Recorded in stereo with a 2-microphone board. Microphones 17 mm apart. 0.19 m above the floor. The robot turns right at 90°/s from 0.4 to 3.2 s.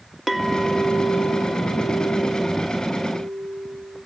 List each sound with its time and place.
0.3 s a clink: straight behind, 1.6 m; by 4.0 s 75° left, 1.6 m